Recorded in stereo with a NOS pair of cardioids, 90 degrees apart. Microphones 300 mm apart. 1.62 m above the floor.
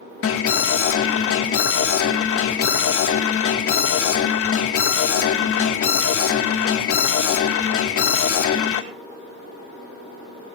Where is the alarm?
50° left, 3 m.